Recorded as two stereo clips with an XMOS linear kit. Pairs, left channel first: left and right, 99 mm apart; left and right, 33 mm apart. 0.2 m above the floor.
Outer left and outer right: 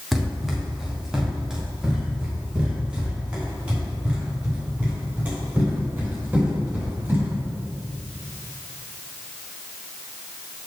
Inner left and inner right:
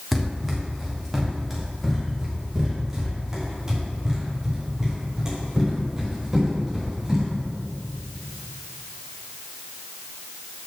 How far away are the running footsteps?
About 4 m.